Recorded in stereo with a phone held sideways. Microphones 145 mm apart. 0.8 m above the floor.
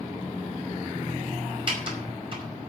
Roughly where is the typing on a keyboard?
Right.